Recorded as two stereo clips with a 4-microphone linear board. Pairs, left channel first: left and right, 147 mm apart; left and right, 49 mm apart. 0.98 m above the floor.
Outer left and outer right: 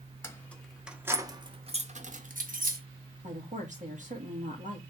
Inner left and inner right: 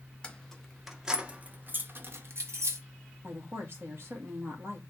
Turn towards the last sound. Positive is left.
turn(degrees=-55)  # may be behind; listen again after turning